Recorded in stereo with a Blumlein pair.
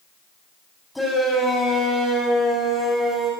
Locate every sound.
0.9 s a shout: 5° left, 6.5 m